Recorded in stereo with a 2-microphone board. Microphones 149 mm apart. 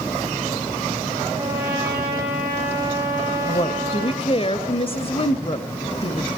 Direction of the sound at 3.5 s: 40° left (ahead or behind).